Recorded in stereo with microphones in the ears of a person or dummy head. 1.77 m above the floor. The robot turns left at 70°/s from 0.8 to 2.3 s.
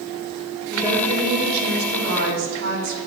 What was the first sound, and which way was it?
A woman speaking, 15° right.